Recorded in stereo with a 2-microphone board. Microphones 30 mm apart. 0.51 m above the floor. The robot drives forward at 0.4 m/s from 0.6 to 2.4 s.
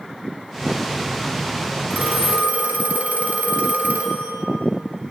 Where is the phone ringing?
70° right (ahead or behind), 2.5 m.